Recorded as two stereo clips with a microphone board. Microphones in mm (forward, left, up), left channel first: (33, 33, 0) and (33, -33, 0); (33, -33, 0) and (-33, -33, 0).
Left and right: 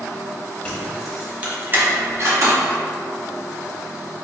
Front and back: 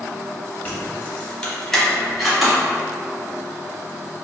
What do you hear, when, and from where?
0.7 s keys jangling: 30° left, 0.7 m; by 2.6 s 95° right, 1.1 m